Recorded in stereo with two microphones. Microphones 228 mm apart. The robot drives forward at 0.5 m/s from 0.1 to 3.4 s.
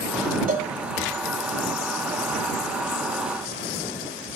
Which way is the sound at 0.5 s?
40° right (ahead or behind).